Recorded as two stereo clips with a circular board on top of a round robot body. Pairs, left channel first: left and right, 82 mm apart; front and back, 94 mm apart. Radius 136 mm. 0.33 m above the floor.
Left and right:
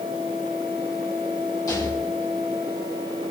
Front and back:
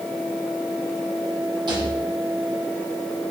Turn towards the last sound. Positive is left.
turn(degrees=140)